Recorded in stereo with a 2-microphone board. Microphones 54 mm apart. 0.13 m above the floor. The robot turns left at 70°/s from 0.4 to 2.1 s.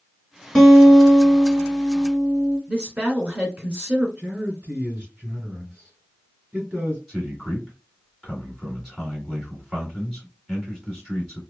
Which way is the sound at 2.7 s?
30° right (ahead or behind).